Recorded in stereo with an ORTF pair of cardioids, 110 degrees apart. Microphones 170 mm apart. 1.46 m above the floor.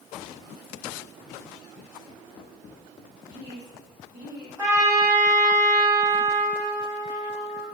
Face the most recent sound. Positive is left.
turn(degrees=-20)